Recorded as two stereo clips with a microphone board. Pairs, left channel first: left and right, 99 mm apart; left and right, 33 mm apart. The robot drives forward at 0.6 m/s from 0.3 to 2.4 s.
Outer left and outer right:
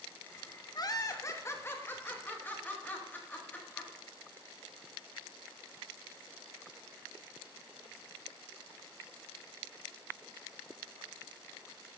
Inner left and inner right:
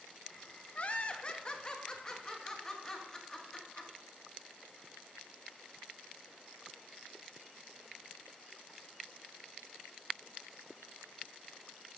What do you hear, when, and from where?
0.8 s laughter: 40° left (ahead or behind), 0.7 m; by 3.9 s 20° left (ahead or behind), 1.6 m